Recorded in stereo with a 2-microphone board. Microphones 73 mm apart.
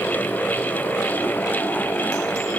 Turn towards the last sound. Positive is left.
No sound to turn to.